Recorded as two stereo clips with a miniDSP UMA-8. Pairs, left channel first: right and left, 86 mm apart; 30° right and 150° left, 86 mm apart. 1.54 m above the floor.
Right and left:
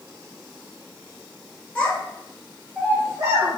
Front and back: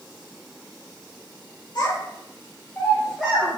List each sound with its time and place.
1.8 s a child speaking: 20° right, 0.8 m; by 3.6 s 90° left, 0.7 m